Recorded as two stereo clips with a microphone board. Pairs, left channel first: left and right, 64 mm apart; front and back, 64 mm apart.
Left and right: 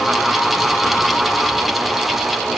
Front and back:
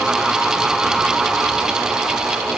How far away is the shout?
No shout in this recording.